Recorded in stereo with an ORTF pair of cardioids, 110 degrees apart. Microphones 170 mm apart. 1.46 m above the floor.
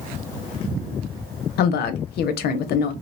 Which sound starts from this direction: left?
A woman speaking, at 1.6 s.